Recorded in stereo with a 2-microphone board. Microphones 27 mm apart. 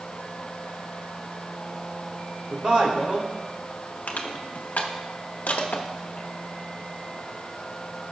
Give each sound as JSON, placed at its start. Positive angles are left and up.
{"t": 2.5, "sound": "a man speaking", "side_deg": -35, "distance_m": 2.0}
{"t": 4.1, "sound": "crushing", "side_deg": 85, "distance_m": 1.0}